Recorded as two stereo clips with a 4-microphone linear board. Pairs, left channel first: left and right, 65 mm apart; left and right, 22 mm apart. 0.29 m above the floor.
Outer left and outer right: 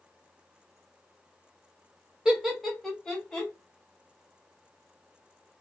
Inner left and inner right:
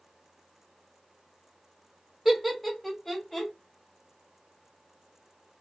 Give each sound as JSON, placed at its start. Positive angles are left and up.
{"t": 2.2, "sound": "laughter", "side_deg": -10, "distance_m": 1.0}